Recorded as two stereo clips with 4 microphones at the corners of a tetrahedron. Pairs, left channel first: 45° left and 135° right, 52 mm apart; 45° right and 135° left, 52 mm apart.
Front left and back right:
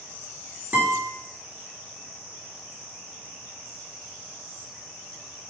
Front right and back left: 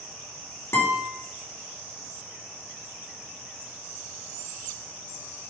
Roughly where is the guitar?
Right.